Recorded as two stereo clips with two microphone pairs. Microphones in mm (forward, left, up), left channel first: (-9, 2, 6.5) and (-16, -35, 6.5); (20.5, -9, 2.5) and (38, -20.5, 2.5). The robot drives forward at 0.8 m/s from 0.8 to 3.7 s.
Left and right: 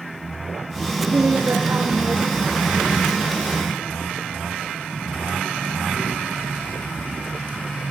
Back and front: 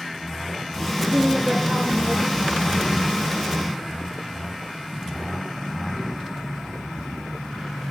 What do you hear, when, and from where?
1.1 s a woman speaking: 115° right, 6 m; by 2.6 s 125° right, 6.5 m